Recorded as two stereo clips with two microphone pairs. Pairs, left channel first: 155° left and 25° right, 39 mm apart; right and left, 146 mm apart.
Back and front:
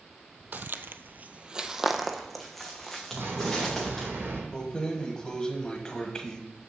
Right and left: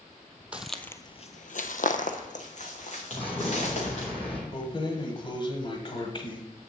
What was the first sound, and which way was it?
Footsteps, 10° left.